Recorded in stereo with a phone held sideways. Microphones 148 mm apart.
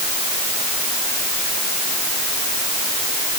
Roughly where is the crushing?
I don't hear crushing.